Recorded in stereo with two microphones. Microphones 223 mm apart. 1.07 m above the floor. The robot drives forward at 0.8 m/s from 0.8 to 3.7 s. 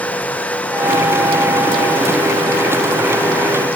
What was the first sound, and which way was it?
Only background noise.